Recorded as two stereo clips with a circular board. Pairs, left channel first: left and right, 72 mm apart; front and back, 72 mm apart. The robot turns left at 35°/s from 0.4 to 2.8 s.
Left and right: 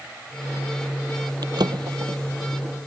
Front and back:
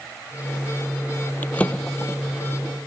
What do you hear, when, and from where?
1.4 s a drawer: 65° right; by 2.9 s 115° right